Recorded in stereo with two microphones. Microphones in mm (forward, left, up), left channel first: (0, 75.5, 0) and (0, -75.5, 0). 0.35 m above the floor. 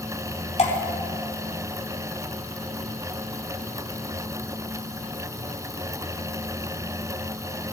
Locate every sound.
0.6 s dripping: 45° left (ahead or behind), 2.0 m